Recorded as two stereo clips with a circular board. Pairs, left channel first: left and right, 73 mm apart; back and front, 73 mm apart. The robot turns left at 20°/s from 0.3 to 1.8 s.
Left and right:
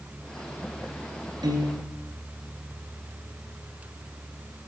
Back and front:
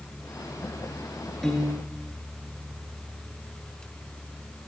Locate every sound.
1.4 s a piano: 95° right, 4 m; by 1.9 s 100° right, 4 m